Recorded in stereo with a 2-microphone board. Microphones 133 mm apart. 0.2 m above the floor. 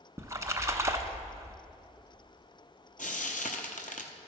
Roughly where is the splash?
Right.